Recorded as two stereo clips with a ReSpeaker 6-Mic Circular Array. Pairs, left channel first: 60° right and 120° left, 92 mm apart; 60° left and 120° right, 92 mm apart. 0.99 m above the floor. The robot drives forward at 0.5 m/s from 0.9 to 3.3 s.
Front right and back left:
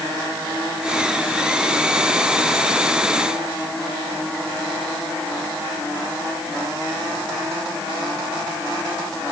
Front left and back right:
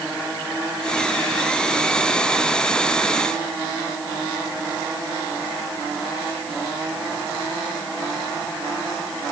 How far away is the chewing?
I don't hear chewing.